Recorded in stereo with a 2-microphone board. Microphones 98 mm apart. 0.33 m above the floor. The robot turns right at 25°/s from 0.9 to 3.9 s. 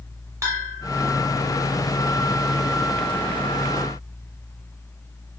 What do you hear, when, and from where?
0.4 s a bell: 35° right (ahead or behind), 1.1 m